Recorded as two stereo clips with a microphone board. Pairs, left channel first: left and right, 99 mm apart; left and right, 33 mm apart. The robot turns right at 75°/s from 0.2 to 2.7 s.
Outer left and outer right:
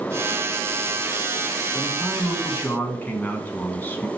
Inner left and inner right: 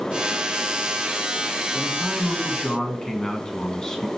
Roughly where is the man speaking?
Centre.